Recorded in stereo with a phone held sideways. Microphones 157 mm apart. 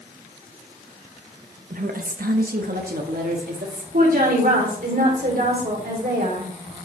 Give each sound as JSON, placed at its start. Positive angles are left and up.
{"t": 1.7, "sound": "a woman speaking", "side_deg": -60, "distance_m": 0.9}
{"t": 3.9, "sound": "a woman speaking", "side_deg": -70, "distance_m": 3.5}